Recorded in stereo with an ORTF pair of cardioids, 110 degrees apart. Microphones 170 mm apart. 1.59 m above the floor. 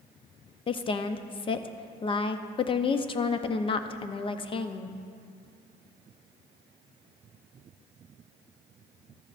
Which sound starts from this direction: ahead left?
A woman speaking, at 0.7 s.